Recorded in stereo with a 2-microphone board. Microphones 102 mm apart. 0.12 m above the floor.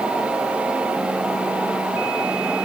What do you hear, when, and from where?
Only background noise.